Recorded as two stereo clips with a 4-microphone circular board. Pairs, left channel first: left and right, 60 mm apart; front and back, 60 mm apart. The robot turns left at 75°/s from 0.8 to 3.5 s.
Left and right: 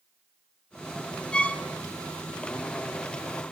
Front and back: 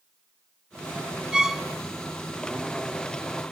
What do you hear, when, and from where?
1.3 s a violin: 125° left, 0.9 m; by 1.6 s 100° left, 0.9 m